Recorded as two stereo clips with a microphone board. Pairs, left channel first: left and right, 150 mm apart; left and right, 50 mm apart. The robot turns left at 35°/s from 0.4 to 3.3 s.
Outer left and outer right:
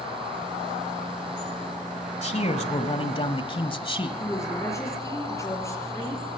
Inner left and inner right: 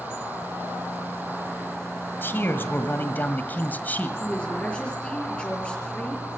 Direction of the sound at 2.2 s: 90° left.